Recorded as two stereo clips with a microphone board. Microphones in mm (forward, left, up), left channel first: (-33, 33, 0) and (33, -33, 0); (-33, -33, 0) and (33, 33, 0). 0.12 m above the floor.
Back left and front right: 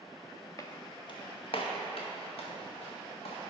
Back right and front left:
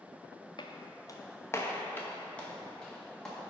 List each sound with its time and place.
0.6 s footsteps: 170° right, 1.0 m; by 3.4 s 140° left, 3 m